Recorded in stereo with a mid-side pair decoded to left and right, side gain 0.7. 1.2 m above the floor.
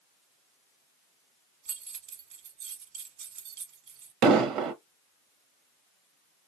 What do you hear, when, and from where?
1.6 s keys jangling: 60° right, 1.1 m
4.2 s an explosion: 60° right, 0.8 m